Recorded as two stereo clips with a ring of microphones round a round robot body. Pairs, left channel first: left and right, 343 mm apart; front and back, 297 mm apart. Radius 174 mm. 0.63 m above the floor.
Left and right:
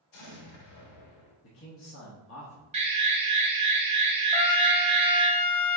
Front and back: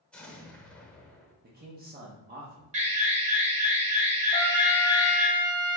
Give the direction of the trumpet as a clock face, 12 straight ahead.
9 o'clock.